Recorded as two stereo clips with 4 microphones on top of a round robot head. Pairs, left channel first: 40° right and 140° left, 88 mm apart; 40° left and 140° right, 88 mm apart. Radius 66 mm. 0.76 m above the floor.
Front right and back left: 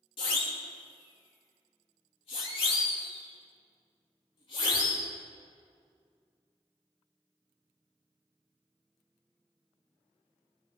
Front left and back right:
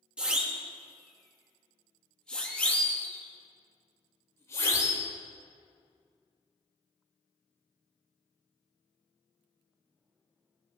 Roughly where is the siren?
Ahead right.